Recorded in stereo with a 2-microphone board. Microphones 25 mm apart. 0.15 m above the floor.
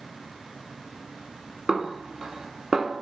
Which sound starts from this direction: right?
A snare drum, at 1.7 s.